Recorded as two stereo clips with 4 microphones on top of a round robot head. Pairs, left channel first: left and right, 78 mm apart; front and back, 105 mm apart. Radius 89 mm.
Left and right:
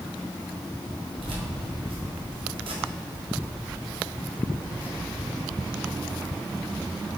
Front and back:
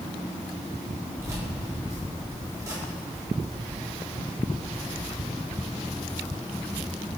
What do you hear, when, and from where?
1.2 s keys jangling: 110° right, 2 m